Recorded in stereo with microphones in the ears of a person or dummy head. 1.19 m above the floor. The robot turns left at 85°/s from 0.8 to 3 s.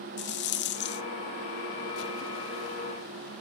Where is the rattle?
50° left (ahead or behind), 0.9 m; by 1.0 s 55° left (ahead or behind), 0.9 m.